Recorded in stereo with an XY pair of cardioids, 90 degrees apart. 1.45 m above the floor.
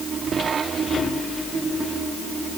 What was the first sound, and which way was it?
Only background noise.